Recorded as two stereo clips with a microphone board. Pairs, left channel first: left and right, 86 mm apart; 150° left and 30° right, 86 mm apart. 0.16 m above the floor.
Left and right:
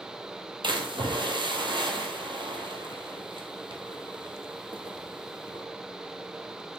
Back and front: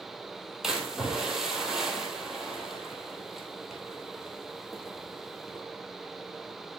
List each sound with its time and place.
0.6 s a splash: 115° right, 1.5 m